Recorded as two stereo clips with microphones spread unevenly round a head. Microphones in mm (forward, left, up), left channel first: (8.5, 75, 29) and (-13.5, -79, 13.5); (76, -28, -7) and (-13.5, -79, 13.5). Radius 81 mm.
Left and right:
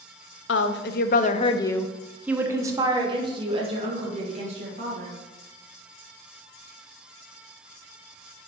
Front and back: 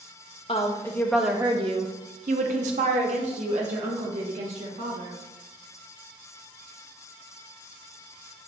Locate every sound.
0.5 s a woman speaking: 95° left, 0.7 m; by 5.1 s 145° right, 2 m